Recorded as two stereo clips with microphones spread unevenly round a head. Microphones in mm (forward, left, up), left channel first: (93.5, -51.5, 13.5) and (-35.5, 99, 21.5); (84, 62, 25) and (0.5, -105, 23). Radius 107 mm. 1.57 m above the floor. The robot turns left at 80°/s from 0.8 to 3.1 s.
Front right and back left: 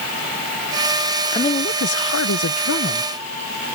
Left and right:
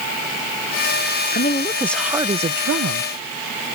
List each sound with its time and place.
1.3 s a woman speaking: 25° left; by 3.1 s 115° right